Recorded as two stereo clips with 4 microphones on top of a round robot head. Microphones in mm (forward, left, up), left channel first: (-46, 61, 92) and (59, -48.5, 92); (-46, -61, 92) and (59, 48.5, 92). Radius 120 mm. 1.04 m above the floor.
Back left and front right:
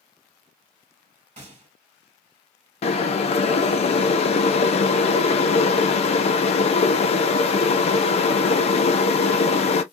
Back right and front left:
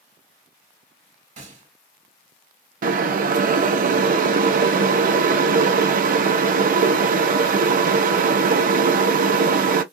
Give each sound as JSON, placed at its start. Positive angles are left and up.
{"t": 1.4, "sound": "a gunshot", "azimuth_deg": 0, "distance_m": 1.4}
{"t": 2.8, "sound": "boiling", "azimuth_deg": 80, "distance_m": 0.5}